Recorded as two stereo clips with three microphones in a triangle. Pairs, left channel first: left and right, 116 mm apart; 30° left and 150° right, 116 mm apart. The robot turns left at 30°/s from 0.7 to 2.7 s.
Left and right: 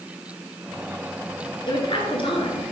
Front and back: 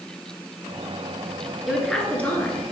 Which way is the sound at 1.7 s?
125° left.